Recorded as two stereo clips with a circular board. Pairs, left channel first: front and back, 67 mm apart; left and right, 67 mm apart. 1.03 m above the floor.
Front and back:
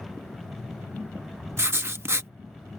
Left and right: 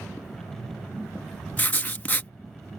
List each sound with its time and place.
1.6 s writing: 145° left